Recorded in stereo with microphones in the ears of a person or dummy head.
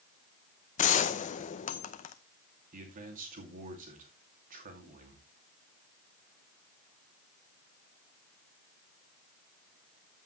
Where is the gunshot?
40° left (ahead or behind), 0.8 m.